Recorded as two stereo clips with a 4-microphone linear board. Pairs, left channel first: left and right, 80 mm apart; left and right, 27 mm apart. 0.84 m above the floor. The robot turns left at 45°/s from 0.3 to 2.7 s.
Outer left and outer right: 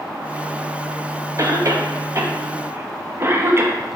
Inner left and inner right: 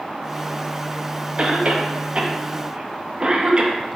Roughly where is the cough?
Right.